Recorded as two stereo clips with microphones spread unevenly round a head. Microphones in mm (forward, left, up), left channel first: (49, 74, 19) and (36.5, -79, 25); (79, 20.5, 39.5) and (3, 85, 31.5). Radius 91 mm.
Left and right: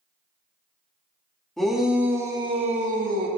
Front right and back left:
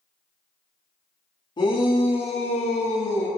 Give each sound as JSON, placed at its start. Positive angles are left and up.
{"t": 1.6, "sound": "a shout", "azimuth_deg": 0, "distance_m": 2.5}